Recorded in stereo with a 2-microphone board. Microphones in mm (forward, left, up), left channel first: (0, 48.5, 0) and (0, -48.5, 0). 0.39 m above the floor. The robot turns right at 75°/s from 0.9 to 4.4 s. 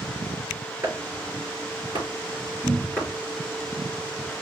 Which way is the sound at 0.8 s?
40° right (ahead or behind).